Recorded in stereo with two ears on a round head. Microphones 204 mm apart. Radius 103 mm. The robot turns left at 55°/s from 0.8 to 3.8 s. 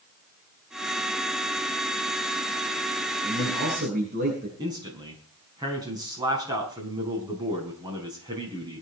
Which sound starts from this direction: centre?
A man speaking, at 4.6 s.